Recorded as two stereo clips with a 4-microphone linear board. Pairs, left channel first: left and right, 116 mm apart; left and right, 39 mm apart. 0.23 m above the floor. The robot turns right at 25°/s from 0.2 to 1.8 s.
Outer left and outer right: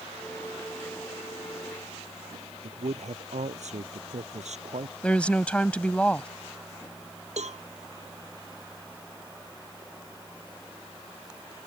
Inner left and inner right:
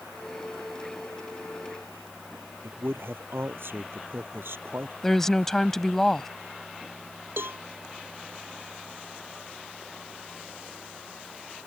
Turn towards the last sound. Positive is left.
turn(degrees=-75)  # may be behind; listen again after turning